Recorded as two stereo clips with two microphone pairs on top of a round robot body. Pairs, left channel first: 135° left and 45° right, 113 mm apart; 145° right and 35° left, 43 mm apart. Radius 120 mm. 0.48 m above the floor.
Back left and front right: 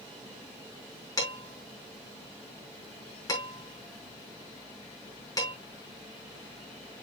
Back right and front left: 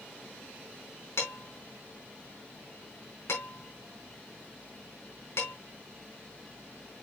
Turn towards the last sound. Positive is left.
turn(degrees=-160)